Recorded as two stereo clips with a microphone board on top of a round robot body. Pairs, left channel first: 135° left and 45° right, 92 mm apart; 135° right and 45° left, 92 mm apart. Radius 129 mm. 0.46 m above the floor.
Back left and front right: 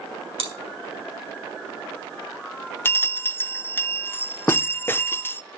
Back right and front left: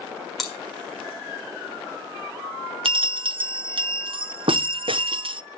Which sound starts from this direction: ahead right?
Chewing, at 0.4 s.